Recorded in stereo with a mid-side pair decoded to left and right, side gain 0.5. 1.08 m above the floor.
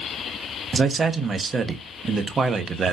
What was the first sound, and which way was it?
A man speaking, 35° right.